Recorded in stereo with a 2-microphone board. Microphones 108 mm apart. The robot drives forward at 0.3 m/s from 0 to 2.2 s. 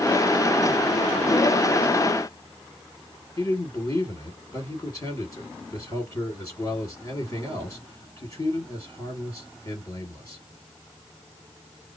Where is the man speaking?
35° left (ahead or behind), 2.0 m.